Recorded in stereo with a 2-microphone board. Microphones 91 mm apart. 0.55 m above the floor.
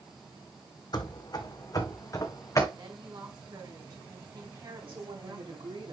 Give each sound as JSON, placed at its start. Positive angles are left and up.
{"t": 0.9, "sound": "running footsteps", "side_deg": 50, "distance_m": 1.3}
{"t": 2.8, "sound": "a woman speaking", "side_deg": -45, "distance_m": 4.5}
{"t": 4.9, "sound": "a woman speaking", "side_deg": -75, "distance_m": 4.0}